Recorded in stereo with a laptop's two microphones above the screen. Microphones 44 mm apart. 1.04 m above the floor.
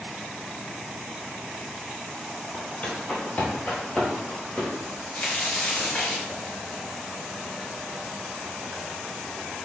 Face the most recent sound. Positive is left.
turn(degrees=35)  # may be behind; listen again after turning